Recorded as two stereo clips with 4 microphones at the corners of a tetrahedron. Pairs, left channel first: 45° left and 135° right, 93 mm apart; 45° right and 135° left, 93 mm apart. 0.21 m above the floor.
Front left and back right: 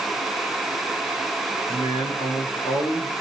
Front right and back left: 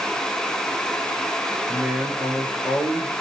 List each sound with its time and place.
1.7 s a man speaking: 50° left, 4.5 m